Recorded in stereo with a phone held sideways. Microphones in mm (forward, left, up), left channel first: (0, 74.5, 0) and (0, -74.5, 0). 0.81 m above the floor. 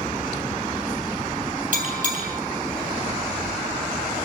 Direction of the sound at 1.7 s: 65° right (ahead or behind).